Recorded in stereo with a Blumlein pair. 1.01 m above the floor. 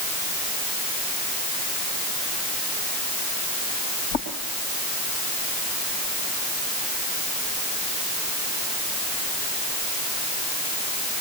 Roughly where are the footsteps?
Ahead left.